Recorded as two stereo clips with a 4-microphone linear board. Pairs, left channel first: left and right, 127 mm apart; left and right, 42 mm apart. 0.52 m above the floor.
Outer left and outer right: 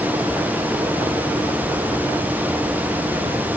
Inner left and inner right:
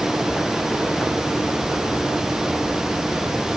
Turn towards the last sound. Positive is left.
No sound to turn to.